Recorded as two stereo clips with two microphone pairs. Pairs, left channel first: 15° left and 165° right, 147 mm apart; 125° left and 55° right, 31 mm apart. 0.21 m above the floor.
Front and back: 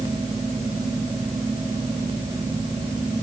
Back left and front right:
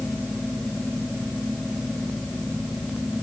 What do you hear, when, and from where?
Only background noise.